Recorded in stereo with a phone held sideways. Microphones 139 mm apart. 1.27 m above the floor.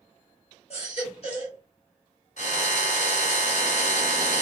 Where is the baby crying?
50° left (ahead or behind), 1.5 m.